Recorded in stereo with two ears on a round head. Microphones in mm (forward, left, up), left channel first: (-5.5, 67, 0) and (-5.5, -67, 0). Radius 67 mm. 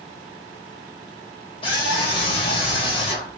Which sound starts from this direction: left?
A scream, at 1.6 s.